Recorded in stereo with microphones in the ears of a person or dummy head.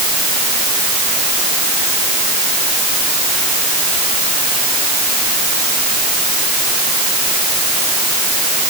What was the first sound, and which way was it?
Only background noise.